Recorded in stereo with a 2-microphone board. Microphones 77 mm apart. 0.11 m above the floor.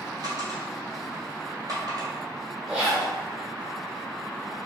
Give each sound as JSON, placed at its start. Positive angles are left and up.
{"t": 0.2, "sound": "a dropped coin", "side_deg": -55, "distance_m": 1.6}
{"t": 2.7, "sound": "a zipper", "side_deg": -10, "distance_m": 1.6}